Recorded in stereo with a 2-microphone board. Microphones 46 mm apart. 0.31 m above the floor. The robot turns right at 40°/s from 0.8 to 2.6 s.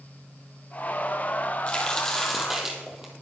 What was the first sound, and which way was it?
A crack, 150° left.